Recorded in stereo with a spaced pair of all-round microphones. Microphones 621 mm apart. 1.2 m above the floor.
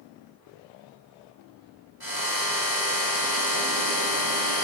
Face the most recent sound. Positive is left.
turn(degrees=-35)  # may be behind; listen again after turning